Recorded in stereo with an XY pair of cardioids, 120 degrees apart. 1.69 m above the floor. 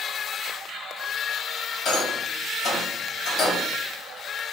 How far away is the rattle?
About 1.1 m.